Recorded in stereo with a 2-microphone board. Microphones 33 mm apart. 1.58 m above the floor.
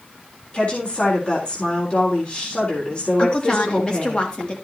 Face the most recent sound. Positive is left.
turn(degrees=35)  # may be behind; listen again after turning